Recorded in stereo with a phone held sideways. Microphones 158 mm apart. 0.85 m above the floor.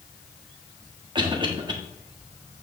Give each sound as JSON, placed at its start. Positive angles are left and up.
{"t": 1.1, "sound": "a cough", "side_deg": -30, "distance_m": 1.3}